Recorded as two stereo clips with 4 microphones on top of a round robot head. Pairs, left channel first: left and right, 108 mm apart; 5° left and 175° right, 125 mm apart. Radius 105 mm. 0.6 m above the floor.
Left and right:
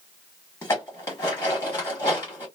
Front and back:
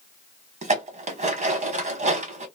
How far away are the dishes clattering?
About 1.4 m.